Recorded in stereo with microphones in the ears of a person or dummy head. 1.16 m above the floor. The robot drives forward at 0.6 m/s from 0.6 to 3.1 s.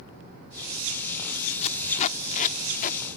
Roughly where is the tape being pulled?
Left.